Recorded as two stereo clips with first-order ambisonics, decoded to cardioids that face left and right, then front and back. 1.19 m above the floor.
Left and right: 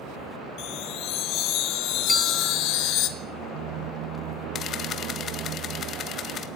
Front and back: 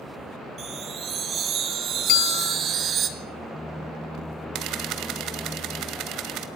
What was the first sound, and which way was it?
A chime, 125° left.